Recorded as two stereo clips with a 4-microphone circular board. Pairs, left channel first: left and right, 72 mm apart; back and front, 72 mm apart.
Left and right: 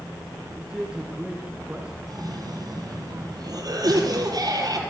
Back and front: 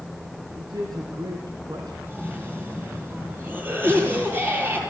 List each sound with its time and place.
0.6 s a man speaking: 15° right, 3 m
2.1 s a cough: 65° right, 6 m